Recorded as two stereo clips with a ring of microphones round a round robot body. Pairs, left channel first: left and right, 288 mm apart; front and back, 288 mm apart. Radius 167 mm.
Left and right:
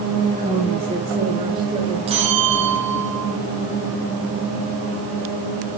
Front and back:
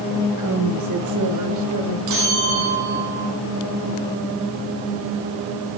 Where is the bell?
160° right, 5 m.